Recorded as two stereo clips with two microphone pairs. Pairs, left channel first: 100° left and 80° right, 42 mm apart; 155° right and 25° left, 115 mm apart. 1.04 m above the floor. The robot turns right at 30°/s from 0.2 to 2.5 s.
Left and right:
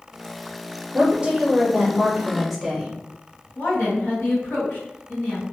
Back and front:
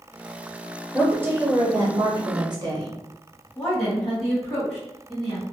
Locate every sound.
0.9 s a woman speaking: 45° right, 0.9 m; by 2.9 s 5° left, 0.9 m
3.5 s a woman speaking: 115° left, 1.7 m